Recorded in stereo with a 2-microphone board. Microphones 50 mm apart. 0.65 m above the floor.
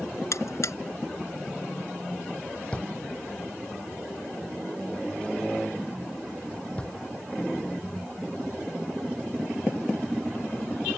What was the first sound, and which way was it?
A buzzer, 70° left (ahead or behind).